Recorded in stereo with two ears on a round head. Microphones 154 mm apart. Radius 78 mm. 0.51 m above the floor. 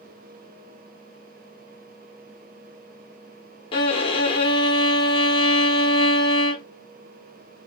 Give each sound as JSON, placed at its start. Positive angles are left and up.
{"t": 3.7, "sound": "a violin", "side_deg": 30, "distance_m": 1.0}